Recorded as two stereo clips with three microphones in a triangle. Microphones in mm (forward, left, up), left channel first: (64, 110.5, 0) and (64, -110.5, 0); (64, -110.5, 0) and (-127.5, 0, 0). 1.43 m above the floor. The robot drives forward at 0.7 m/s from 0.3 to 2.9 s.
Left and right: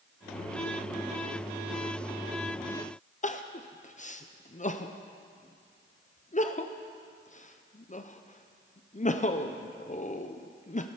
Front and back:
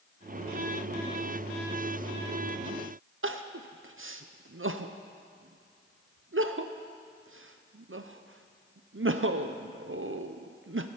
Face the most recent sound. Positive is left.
turn(degrees=140)